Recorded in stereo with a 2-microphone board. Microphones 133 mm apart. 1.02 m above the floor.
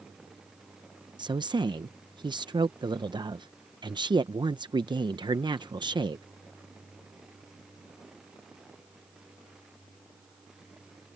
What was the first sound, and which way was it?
A woman speaking, 35° right (ahead or behind).